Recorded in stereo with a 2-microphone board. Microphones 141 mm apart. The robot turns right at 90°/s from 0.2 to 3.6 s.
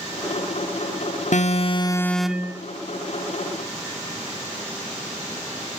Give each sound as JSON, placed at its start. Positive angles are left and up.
{"t": 1.3, "sound": "an alarm", "azimuth_deg": 95, "distance_m": 1.2}